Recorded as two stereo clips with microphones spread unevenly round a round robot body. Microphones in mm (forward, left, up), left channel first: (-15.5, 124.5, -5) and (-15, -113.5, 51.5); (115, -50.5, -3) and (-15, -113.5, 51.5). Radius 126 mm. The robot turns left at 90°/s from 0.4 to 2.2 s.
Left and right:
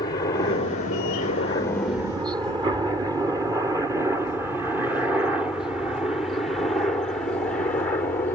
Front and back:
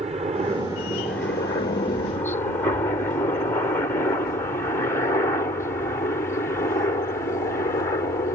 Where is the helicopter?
145° left; by 8.4 s 35° left.